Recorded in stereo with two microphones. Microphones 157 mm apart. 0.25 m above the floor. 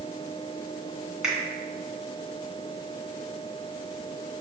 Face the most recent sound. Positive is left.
turn(degrees=-5)  # may be behind; listen again after turning